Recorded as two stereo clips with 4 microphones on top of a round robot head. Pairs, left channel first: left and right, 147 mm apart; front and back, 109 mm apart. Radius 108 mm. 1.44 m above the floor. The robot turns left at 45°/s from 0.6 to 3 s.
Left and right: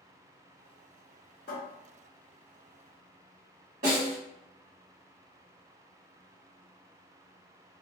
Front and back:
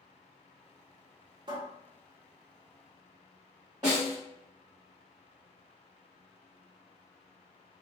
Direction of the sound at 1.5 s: 135° left.